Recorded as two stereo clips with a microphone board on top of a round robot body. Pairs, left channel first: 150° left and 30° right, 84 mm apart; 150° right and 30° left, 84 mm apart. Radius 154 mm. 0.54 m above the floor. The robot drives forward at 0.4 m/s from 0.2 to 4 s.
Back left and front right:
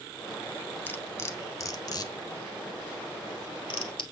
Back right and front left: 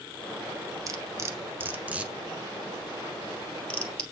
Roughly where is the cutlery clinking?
Left.